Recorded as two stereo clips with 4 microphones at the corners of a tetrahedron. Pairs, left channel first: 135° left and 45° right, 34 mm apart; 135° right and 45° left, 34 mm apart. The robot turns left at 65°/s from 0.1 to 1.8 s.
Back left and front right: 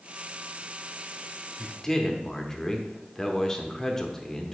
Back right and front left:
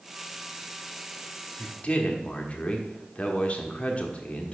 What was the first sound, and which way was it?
A man speaking, 145° right.